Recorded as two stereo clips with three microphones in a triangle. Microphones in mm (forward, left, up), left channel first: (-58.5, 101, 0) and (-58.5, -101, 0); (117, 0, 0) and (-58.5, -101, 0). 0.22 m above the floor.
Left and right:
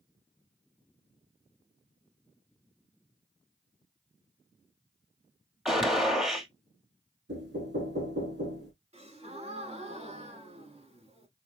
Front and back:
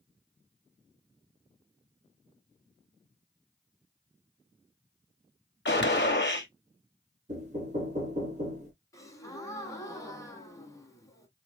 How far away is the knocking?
About 2.5 m.